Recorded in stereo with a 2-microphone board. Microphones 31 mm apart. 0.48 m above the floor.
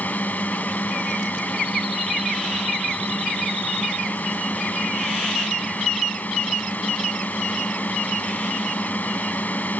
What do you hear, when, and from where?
0.0 s a drone: 70° left (ahead or behind)